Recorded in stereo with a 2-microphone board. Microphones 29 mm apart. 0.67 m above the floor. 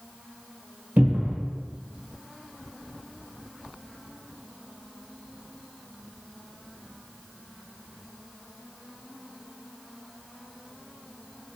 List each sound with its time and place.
1.0 s a cupboard door: 70° right (ahead or behind), 1.1 m